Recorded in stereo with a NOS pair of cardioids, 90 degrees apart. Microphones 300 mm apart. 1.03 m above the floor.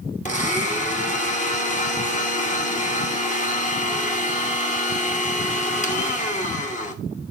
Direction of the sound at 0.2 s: 25° left.